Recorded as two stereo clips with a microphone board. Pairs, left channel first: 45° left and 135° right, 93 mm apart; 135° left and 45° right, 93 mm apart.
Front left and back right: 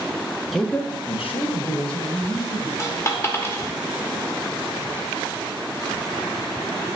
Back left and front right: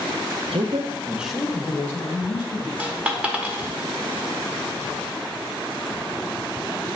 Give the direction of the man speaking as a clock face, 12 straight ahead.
1 o'clock.